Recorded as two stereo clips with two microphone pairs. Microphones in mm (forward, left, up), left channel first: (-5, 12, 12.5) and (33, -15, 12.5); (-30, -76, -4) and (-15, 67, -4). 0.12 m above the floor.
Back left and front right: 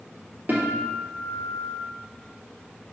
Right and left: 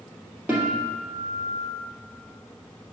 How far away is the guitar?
About 2.5 m.